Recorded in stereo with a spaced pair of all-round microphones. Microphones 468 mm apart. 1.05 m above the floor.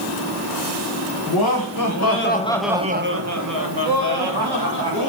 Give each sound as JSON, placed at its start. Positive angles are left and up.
{"t": 1.3, "sound": "laughter", "side_deg": 50, "distance_m": 1.2}